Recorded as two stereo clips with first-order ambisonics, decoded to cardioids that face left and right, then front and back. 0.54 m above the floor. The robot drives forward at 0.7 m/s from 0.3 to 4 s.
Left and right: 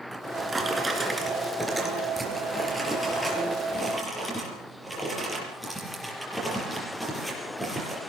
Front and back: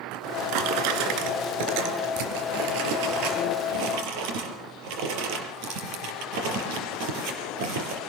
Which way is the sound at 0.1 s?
165° right.